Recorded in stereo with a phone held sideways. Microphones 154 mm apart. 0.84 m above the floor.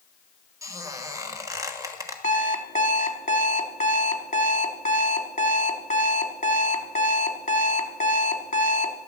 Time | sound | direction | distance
0.6 | a squeak | 20° right (ahead or behind) | 1.4 m
2.2 | an alarm clock | 50° left (ahead or behind) | 1.2 m